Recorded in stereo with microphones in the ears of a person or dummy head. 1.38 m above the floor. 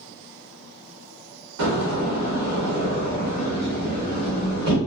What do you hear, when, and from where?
1.6 s a door slam: 65° right (ahead or behind), 1.2 m